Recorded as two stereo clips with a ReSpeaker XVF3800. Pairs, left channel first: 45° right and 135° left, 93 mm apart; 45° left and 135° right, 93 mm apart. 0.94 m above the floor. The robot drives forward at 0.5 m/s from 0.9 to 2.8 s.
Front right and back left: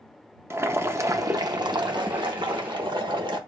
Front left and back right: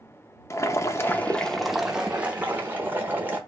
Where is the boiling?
85° left, 0.5 m; by 3.4 s 160° left, 1.1 m.